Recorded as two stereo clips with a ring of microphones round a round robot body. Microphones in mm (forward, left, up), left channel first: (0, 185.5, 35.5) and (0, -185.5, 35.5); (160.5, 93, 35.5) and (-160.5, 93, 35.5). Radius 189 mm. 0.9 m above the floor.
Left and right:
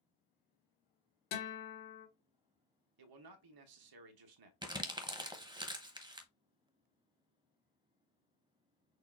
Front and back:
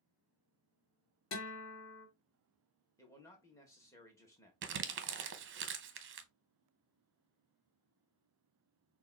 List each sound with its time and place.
1.3 s a guitar: 40° left, 1.8 m
3.0 s a man speaking: 80° right, 1.0 m
4.6 s crumpling: 160° right, 0.8 m